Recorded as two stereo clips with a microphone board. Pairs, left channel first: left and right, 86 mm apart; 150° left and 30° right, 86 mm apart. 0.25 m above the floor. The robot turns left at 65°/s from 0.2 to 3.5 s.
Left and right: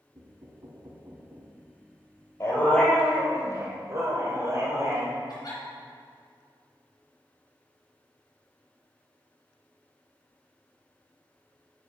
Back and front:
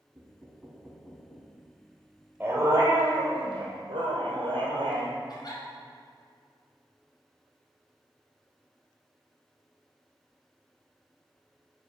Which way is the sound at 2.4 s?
35° left.